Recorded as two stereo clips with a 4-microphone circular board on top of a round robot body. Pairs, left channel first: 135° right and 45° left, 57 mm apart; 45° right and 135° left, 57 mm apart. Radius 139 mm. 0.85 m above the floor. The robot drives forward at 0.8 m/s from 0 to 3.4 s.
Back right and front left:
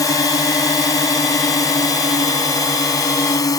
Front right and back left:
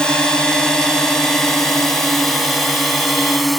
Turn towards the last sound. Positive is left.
turn(degrees=-135)